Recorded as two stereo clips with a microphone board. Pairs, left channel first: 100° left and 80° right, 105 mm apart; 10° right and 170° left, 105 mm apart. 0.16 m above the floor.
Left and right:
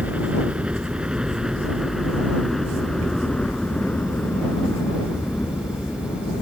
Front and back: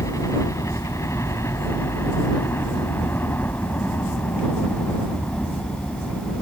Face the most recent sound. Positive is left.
turn(degrees=65)